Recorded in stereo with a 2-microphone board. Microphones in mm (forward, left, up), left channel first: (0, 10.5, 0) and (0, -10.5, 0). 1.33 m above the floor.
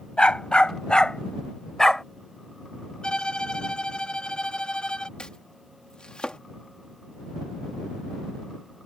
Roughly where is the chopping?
Left.